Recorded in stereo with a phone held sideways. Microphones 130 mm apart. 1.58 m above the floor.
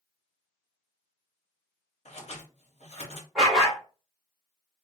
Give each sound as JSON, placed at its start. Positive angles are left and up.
{"t": 2.0, "sound": "scissors", "side_deg": 55, "distance_m": 0.8}
{"t": 3.4, "sound": "a dog barking", "side_deg": 0, "distance_m": 1.4}